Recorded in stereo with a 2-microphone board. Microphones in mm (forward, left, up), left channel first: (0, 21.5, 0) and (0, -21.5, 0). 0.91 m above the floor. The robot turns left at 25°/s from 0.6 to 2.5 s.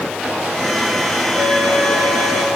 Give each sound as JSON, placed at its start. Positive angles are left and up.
{"t": 1.4, "sound": "a flute", "side_deg": -85, "distance_m": 7.0}